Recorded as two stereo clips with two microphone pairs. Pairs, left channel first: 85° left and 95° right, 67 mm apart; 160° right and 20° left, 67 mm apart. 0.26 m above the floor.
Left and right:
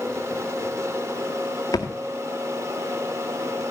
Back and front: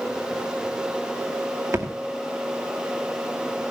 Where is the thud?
60° left, 1.9 m.